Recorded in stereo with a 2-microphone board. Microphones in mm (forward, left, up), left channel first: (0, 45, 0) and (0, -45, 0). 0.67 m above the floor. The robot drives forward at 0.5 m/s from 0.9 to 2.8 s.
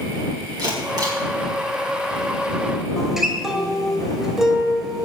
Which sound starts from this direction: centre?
A guitar, at 3.0 s.